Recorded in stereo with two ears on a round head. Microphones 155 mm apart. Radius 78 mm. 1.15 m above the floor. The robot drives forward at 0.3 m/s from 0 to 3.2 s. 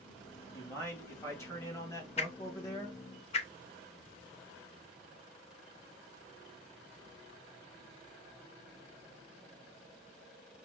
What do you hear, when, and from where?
0.5 s a man speaking: 15° left (ahead or behind), 2.0 m; by 3.0 s 20° left (ahead or behind), 1.3 m
2.2 s a whoosh: 35° left (ahead or behind), 0.5 m; by 3.5 s 40° left (ahead or behind), 0.5 m